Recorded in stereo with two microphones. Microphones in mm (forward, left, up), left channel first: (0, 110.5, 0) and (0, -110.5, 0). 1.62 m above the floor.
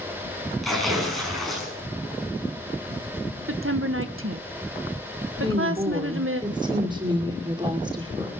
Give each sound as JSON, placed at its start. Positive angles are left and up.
{"t": 0.6, "sound": "tearing paper", "side_deg": 0, "distance_m": 7.0}
{"t": 3.5, "sound": "a woman speaking", "side_deg": -70, "distance_m": 1.3}
{"t": 5.4, "sound": "a woman speaking", "side_deg": -20, "distance_m": 5.0}